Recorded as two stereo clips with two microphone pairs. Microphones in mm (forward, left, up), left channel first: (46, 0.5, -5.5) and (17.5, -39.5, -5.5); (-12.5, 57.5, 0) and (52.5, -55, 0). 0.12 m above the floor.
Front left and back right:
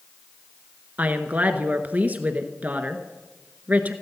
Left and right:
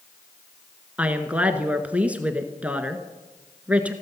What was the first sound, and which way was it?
A woman speaking, 130° right.